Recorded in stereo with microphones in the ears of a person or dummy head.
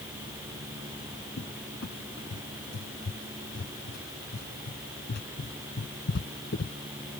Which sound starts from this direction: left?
A cupboard door, at 1.4 s.